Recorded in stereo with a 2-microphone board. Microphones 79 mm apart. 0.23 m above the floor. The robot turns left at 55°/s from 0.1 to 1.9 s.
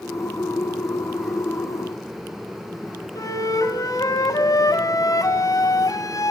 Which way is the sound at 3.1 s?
50° left (ahead or behind).